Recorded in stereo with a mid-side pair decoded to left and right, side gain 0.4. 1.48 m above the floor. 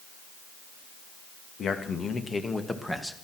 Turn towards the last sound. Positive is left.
turn(degrees=5)